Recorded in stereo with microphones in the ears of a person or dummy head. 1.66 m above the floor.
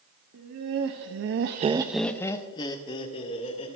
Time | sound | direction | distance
0.3 | laughter | 55° right (ahead or behind) | 1.7 m